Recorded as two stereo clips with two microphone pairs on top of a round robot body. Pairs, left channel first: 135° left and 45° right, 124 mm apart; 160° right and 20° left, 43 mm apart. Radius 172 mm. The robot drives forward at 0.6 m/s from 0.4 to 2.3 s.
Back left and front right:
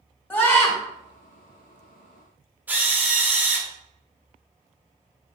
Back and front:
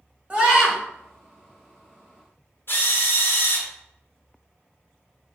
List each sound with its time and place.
0.3 s a scream: 65° left, 1.6 m; by 0.8 s 75° left, 1.6 m
2.7 s a drill: 120° right, 1.2 m